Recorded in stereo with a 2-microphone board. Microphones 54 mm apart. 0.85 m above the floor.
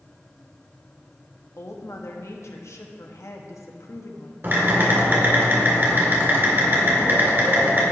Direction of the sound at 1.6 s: 65° left (ahead or behind).